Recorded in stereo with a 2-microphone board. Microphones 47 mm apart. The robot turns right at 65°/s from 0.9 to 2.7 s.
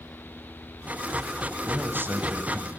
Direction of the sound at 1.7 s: 115° right.